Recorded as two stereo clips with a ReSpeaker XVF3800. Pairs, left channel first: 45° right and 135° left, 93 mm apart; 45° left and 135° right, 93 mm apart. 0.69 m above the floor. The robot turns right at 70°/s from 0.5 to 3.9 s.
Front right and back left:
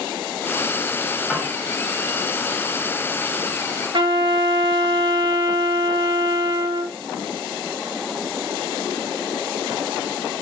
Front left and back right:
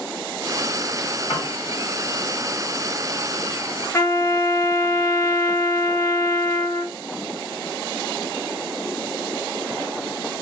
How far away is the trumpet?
About 0.6 m.